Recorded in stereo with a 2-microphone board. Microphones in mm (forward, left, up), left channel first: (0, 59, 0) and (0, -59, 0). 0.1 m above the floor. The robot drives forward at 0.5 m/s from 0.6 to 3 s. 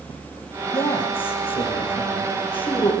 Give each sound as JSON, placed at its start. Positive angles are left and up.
{"t": 0.7, "sound": "a man speaking", "side_deg": 50, "distance_m": 6.5}